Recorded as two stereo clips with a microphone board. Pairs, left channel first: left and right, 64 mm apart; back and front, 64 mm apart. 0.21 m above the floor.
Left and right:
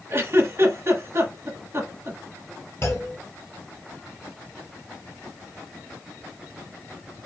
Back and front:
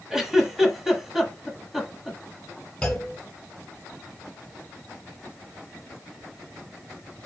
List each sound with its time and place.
0.1 s a giggle: 80° right, 1.2 m
2.8 s a clunk: 110° left, 1.8 m